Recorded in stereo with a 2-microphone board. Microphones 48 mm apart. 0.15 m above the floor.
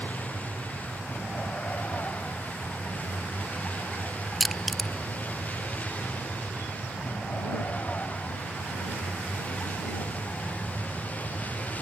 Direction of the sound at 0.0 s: 30° left (ahead or behind).